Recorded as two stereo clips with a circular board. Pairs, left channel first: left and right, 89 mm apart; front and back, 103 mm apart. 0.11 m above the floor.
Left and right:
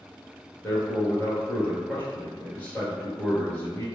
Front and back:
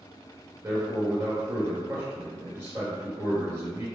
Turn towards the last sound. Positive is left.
turn(degrees=140)